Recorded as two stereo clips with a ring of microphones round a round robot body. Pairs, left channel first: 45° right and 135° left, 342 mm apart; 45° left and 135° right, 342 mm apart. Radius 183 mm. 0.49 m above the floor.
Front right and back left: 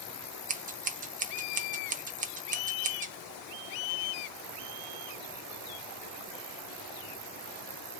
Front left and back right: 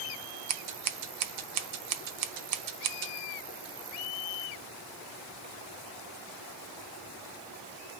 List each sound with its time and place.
0.5 s scissors: 160° right, 0.6 m